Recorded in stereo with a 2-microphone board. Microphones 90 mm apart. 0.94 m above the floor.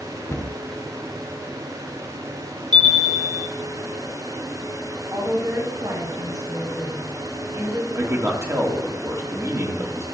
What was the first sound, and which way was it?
A cupboard door, 30° left (ahead or behind).